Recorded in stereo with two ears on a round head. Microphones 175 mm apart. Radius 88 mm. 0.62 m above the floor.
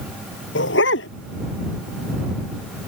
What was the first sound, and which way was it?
A dog barking, 70° left (ahead or behind).